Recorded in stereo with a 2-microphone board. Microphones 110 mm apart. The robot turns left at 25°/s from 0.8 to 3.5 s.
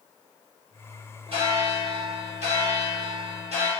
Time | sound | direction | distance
1.3 | a bell | 55° right | 1.3 m